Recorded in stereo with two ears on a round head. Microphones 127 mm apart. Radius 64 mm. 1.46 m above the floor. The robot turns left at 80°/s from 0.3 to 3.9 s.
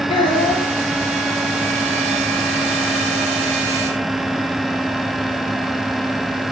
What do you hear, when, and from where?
0.1 s a child speaking: 40° left (ahead or behind), 2.5 m; by 0.7 s 10° left (ahead or behind), 2.5 m